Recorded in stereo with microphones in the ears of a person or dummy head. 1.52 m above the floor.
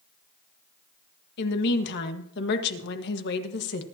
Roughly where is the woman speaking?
Left.